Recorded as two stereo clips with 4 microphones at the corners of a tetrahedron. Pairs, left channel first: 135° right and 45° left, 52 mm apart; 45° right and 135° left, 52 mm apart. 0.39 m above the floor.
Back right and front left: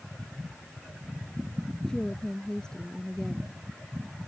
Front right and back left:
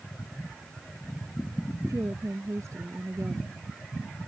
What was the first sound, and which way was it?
A woman speaking, 150° left.